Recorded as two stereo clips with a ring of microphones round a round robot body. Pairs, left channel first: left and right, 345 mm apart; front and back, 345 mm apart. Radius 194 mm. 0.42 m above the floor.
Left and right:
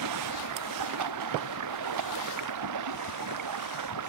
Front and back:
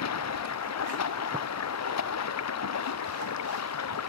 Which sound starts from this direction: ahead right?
Running water, at 0.0 s.